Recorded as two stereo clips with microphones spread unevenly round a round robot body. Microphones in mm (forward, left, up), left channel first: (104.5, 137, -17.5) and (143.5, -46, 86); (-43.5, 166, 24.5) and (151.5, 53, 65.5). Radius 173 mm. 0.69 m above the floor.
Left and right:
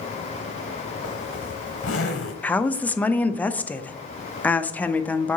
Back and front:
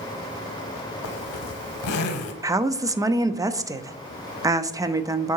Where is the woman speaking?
50° left, 0.6 m.